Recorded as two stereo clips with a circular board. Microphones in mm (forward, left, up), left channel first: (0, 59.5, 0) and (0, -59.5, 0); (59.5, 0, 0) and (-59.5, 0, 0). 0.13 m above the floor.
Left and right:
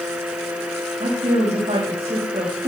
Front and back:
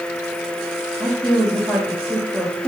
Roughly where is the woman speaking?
Right.